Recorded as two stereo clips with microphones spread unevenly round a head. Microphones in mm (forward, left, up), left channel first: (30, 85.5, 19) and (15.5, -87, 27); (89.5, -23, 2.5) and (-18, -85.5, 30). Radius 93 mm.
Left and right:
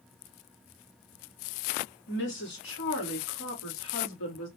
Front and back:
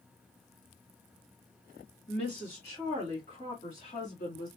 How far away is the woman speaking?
About 2.0 m.